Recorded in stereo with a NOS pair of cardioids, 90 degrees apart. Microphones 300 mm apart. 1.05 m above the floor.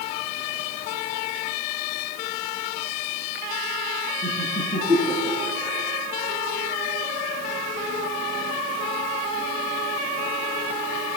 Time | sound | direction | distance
4.2 | laughter | straight ahead | 10 m